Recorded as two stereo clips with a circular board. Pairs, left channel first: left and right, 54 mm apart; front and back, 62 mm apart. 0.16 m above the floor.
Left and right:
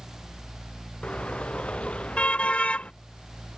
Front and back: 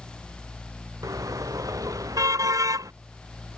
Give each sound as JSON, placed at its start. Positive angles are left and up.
{"t": 1.0, "sound": "a car horn", "azimuth_deg": 160}